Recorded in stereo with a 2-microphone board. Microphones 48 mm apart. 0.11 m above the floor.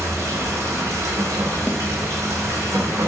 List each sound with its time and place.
0.0 s running water: 75° right (ahead or behind), 0.9 m
1.7 s a snare drum: 55° left (ahead or behind), 0.6 m